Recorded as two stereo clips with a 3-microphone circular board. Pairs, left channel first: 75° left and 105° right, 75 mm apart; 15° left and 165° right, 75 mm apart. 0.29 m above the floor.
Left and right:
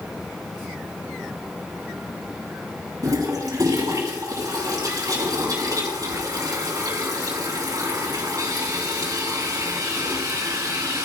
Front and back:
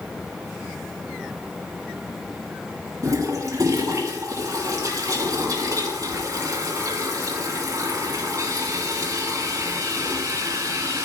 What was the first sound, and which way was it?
A toilet flushing, 135° right.